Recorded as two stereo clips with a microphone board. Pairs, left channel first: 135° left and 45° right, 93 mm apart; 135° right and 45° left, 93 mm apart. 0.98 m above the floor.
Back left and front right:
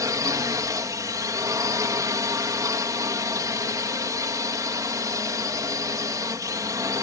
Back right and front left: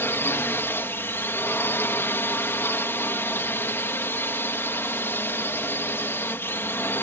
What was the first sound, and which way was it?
A drone, 80° right.